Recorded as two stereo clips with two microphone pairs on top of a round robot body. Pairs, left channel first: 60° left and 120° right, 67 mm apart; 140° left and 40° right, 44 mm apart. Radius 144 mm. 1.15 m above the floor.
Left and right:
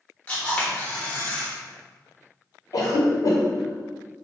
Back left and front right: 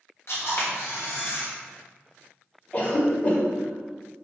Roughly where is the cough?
Left.